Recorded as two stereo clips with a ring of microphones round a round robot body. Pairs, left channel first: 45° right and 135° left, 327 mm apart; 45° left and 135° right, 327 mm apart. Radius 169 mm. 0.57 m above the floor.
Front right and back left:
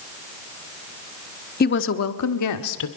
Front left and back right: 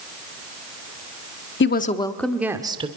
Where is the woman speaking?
5° left, 1.2 m; by 2.9 s 65° right, 1.9 m.